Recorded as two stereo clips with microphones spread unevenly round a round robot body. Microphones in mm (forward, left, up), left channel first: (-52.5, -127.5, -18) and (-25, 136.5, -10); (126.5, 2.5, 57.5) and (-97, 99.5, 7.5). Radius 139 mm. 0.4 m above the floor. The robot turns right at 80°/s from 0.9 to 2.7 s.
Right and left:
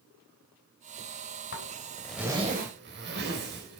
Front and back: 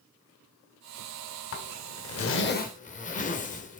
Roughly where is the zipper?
Ahead right.